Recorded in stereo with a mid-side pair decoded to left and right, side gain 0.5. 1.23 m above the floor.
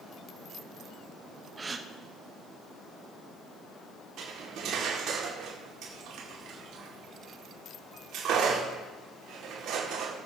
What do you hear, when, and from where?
1.6 s a gasp: 30° right, 0.9 m
4.2 s cutlery clinking: 70° right, 2 m